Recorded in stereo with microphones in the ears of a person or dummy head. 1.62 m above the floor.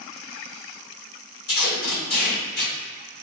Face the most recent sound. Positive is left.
turn(degrees=55)  # may be behind; listen again after turning